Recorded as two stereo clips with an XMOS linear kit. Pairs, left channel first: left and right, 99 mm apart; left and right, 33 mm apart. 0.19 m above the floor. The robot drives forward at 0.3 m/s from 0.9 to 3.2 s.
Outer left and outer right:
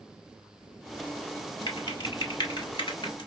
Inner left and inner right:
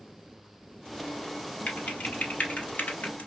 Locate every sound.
1.7 s typing on a keyboard: 45° left (ahead or behind), 1.8 m; by 3.3 s 55° left (ahead or behind), 1.5 m